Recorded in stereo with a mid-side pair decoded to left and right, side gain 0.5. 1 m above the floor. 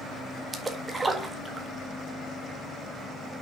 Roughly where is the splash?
Ahead right.